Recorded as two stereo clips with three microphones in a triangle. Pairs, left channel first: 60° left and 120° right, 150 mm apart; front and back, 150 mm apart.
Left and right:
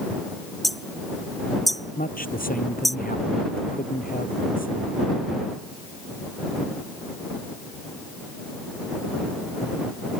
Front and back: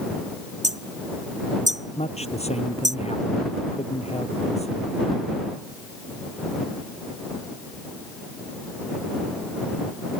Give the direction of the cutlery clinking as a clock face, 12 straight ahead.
I don't hear cutlery clinking.